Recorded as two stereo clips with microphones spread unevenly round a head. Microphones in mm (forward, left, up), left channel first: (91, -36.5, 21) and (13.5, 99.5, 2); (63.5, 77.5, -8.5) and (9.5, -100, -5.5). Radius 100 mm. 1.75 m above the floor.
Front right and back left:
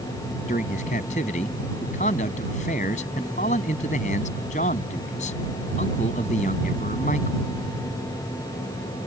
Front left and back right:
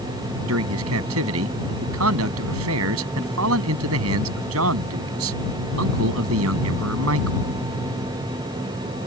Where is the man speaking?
120° right.